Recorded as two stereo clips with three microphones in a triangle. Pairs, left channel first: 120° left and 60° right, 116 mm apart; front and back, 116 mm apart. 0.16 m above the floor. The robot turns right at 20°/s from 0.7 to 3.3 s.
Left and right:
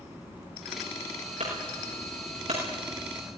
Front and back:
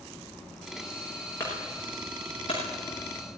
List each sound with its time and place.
1.4 s a clunk: 65° right, 8.5 m; by 2.6 s 45° right, 8.5 m